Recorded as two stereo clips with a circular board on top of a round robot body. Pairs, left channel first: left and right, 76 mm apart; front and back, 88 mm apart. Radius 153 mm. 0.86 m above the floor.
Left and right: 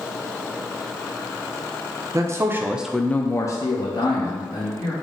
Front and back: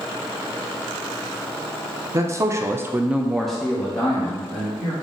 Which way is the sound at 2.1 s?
130° right.